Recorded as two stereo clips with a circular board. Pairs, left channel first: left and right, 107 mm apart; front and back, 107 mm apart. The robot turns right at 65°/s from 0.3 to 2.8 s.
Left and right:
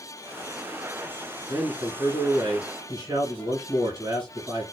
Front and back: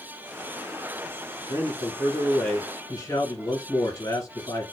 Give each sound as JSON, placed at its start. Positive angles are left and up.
{"t": 1.5, "sound": "a man speaking", "azimuth_deg": -145, "distance_m": 2.5}